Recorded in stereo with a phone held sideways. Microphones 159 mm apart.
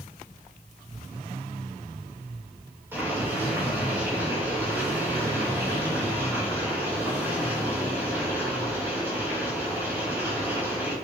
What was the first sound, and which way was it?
Boiling, 15° right (ahead or behind).